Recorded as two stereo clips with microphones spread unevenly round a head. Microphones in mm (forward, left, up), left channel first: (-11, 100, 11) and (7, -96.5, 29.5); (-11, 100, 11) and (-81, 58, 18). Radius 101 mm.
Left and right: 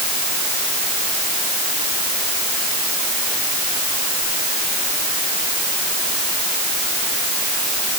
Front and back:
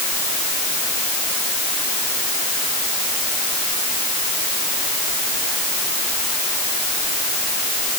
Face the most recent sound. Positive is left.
No sound to turn to.